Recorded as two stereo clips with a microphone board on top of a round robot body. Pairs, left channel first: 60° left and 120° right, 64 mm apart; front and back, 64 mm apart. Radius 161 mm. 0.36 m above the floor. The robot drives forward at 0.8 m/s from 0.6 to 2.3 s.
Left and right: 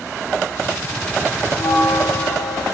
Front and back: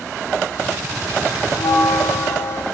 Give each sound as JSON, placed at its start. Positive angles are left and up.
{"t": 1.5, "sound": "a bell", "azimuth_deg": 30, "distance_m": 1.7}